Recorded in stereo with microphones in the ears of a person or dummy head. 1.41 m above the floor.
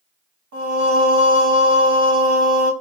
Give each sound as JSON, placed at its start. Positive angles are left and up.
{"t": 0.5, "sound": "singing", "side_deg": -65, "distance_m": 1.8}